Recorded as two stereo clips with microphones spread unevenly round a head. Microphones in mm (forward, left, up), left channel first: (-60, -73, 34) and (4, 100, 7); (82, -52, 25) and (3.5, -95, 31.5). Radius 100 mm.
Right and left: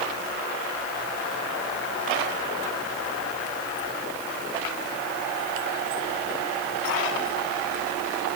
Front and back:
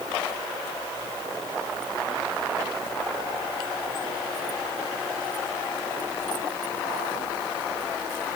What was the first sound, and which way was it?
Only background noise.